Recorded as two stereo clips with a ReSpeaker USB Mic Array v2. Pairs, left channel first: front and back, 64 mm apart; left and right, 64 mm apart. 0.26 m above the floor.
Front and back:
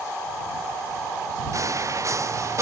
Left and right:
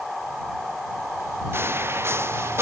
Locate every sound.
1.5 s footsteps: 145° right; by 2.6 s 140° right